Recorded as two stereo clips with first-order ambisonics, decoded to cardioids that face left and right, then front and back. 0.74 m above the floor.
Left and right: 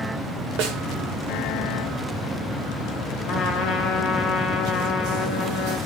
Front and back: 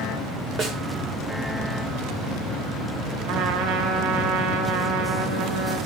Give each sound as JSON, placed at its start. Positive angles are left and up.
{"t": 0.6, "sound": "a snare drum", "azimuth_deg": -115, "distance_m": 1.8}
{"t": 3.2, "sound": "a trumpet", "azimuth_deg": 180, "distance_m": 3.5}